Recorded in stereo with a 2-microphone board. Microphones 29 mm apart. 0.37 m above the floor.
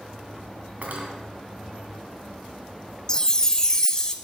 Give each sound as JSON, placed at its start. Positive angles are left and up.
{"t": 0.8, "sound": "cutlery clinking", "side_deg": -60, "distance_m": 2.0}
{"t": 3.1, "sound": "a chime", "side_deg": 25, "distance_m": 0.7}